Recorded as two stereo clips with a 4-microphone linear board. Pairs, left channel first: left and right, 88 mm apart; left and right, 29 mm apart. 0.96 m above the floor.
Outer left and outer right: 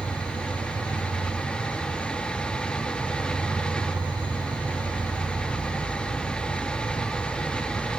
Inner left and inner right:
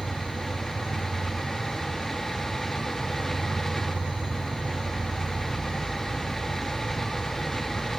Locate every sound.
0.0 s an insect: 70° right (ahead or behind), 4 m